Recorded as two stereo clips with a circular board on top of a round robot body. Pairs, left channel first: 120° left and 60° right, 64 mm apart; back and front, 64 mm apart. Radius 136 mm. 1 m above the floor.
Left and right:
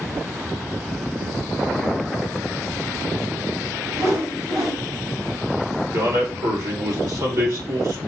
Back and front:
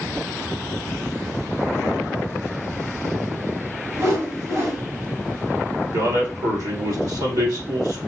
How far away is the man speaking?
About 3 m.